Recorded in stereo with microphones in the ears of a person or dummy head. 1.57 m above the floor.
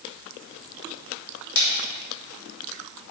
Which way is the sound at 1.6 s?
75° left (ahead or behind).